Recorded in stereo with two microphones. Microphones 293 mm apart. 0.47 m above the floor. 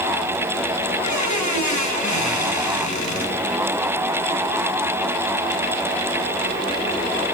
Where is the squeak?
70° left (ahead or behind), 1.5 m.